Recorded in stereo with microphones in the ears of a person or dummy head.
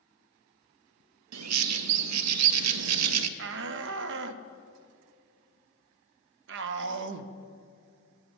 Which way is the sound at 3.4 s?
65° right (ahead or behind).